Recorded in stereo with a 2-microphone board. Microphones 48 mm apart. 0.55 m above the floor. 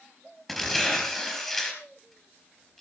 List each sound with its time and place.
0.5 s tearing paper: 10° left (ahead or behind), 4 m